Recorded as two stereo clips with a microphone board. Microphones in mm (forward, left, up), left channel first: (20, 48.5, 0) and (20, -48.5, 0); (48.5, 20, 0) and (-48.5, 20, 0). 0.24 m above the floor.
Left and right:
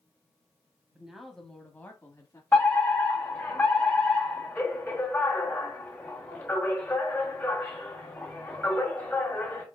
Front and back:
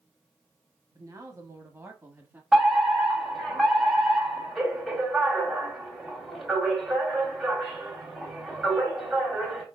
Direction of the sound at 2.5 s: 100° left.